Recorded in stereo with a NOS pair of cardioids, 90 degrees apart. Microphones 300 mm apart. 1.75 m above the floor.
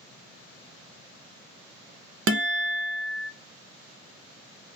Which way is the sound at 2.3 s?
45° right.